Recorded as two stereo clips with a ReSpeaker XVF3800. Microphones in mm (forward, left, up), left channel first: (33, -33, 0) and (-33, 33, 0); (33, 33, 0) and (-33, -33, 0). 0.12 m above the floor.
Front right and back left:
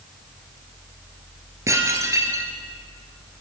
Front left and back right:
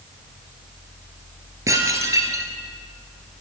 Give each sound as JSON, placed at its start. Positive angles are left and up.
{"t": 1.7, "sound": "dishes clattering", "azimuth_deg": 180, "distance_m": 1.6}